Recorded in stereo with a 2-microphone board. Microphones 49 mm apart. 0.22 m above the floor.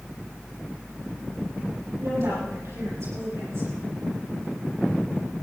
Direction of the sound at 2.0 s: 75° right (ahead or behind).